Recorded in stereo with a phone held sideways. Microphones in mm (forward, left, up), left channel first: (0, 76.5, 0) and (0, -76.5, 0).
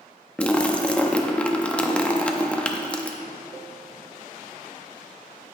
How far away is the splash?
About 0.6 m.